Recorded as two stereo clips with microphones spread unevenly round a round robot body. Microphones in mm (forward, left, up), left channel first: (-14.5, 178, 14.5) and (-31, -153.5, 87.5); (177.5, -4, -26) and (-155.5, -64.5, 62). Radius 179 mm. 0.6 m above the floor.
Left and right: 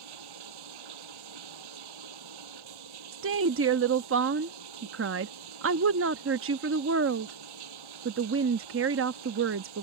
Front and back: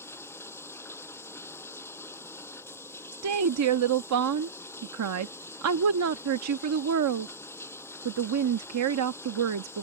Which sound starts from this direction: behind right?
A woman speaking, at 3.1 s.